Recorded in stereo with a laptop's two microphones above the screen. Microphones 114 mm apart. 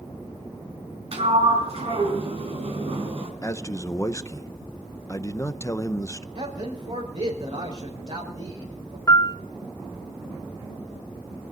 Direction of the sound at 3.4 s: 25° left (ahead or behind).